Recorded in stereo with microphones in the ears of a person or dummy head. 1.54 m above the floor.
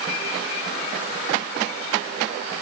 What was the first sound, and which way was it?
Only background noise.